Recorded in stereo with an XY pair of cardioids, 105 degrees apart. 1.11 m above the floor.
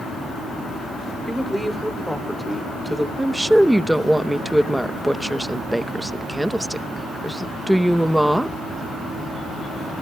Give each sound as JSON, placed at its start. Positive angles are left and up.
{"t": 1.3, "sound": "a woman speaking", "azimuth_deg": 0, "distance_m": 3.0}
{"t": 3.2, "sound": "a woman speaking", "azimuth_deg": -5, "distance_m": 0.8}